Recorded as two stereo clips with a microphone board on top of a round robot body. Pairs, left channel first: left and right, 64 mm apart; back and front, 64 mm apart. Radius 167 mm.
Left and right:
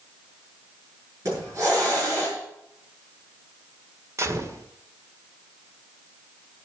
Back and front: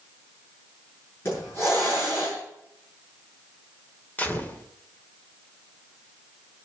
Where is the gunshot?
120° right, 2 m.